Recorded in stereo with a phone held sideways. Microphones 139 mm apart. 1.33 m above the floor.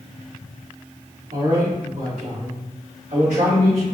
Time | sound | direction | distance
1.3 | a man speaking | 85° right | 2.0 m